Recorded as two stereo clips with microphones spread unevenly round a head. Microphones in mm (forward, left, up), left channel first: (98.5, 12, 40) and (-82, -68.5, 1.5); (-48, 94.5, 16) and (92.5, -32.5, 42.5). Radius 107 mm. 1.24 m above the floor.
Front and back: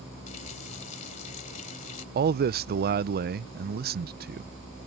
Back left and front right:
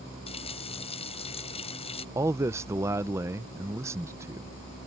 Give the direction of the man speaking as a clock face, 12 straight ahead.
4 o'clock.